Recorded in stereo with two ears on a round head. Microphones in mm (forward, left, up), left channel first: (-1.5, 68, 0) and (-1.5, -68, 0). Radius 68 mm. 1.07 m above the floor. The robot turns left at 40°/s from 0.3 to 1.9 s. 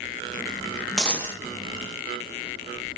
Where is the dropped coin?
5° left (ahead or behind), 0.6 m; by 1.4 s 20° left (ahead or behind), 0.6 m.